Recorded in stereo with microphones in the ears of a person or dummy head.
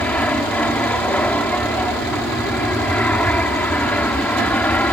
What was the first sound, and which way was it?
An aircraft, 5° left (ahead or behind).